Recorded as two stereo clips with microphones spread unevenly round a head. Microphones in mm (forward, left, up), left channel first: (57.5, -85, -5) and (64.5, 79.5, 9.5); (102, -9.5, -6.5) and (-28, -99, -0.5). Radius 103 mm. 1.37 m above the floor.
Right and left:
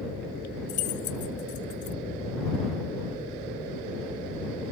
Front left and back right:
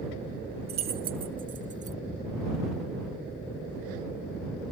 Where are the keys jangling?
130° right; by 2.0 s 105° right.